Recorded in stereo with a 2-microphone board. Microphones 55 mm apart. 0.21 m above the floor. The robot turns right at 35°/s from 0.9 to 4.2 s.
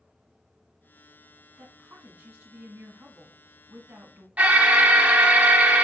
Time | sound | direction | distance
1.6 | a woman speaking | 145° right | 1.5 m
4.4 | an alarm | 25° right (ahead or behind) | 0.7 m